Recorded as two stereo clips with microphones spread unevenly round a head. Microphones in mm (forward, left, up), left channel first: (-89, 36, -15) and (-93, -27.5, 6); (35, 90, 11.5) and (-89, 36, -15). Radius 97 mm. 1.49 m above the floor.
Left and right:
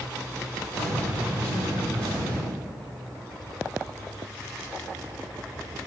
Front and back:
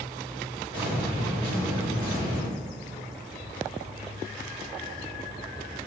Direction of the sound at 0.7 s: 85° right.